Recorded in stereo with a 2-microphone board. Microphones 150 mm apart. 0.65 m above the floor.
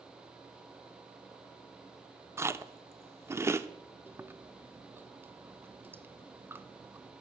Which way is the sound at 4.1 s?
15° right (ahead or behind).